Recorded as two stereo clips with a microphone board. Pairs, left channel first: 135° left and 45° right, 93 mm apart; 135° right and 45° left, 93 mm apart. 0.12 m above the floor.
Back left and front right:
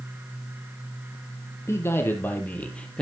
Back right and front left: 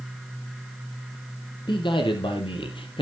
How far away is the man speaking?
About 3 m.